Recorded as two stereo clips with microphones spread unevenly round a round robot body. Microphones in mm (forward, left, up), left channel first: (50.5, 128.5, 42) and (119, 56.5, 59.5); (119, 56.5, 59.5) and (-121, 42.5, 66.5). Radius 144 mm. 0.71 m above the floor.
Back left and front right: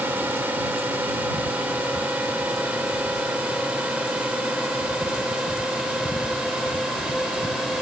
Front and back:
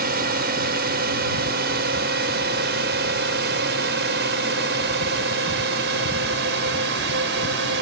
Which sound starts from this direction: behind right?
A drone, at 0.0 s.